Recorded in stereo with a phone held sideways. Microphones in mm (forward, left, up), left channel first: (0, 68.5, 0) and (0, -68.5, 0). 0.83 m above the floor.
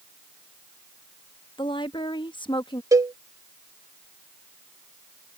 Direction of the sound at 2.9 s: 25° right (ahead or behind).